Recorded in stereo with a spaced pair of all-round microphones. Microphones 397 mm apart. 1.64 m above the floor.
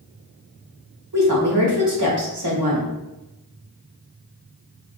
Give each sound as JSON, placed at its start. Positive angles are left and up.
{"t": 1.1, "sound": "a woman speaking", "side_deg": -80, "distance_m": 1.1}